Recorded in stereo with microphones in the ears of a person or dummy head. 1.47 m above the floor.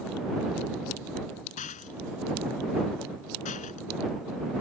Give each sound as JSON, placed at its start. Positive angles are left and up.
{"t": 1.6, "sound": "a rattle", "side_deg": 40}